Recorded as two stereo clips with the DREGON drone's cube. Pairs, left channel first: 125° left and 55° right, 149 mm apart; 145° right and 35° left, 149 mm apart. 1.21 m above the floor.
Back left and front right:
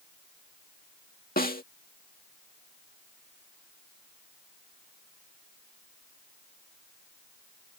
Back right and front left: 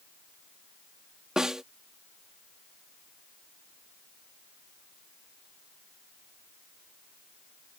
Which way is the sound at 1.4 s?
120° left.